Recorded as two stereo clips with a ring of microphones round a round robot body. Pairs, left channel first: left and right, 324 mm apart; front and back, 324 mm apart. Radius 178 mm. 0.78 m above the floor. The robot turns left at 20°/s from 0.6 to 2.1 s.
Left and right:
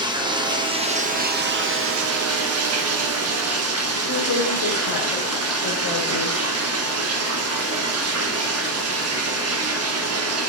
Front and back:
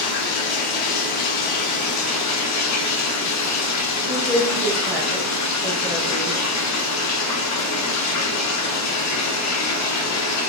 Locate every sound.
0.0 s running water: 10° right, 0.9 m; by 10.5 s 40° right, 0.9 m
4.1 s a woman speaking: 90° left, 4 m